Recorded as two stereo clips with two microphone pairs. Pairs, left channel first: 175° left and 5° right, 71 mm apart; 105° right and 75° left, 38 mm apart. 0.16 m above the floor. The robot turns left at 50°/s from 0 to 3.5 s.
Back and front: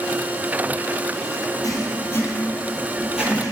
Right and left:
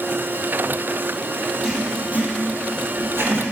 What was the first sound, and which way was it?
Writing, 150° left.